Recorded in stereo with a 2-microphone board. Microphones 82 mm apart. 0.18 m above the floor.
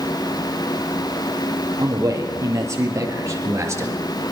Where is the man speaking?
40° right (ahead or behind), 6 m; by 4.3 s 35° right (ahead or behind), 3 m.